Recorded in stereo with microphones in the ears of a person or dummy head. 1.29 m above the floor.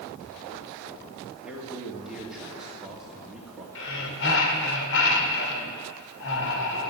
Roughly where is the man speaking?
Centre.